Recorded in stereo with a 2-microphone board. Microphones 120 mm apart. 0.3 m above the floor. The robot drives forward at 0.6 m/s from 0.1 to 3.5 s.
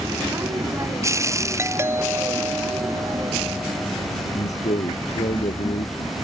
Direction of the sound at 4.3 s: 75° left (ahead or behind).